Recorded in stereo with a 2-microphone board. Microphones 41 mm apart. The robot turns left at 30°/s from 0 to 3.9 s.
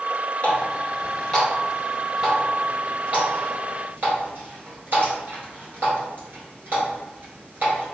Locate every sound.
0.4 s a running tap: 40° left (ahead or behind), 1.6 m; by 8.0 s 55° right (ahead or behind), 1.6 m